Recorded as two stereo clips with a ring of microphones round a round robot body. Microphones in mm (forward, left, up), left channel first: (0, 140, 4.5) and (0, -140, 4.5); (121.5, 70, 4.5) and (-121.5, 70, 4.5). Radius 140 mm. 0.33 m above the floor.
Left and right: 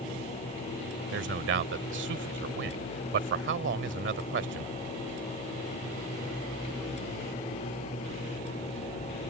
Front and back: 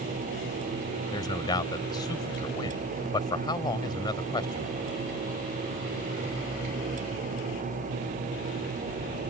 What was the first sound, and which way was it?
A man speaking, 65° right.